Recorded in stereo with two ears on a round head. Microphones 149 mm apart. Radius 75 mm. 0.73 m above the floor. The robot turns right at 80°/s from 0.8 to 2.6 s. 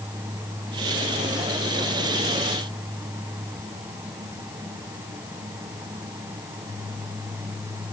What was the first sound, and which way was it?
Only background noise.